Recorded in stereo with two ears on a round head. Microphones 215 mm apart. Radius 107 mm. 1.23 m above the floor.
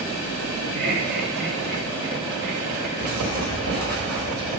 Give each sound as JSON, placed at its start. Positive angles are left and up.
{"t": 0.8, "sound": "laughter", "side_deg": -35, "distance_m": 2.5}
{"t": 3.0, "sound": "writing", "side_deg": -45, "distance_m": 4.5}